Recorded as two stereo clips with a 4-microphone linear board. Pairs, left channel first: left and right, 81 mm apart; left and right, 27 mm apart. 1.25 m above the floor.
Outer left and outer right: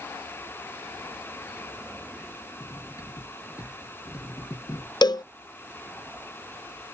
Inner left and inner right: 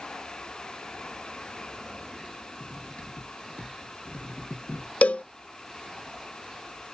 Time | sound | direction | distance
2.6 | cutlery clinking | 50° left (ahead or behind) | ?
5.0 | a cowbell | 65° left (ahead or behind) | ?